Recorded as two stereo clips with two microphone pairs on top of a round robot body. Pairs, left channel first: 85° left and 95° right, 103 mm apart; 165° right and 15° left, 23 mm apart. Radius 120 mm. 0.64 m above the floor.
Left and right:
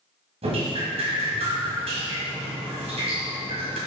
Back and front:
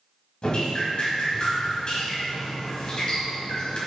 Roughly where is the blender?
I don't hear a blender.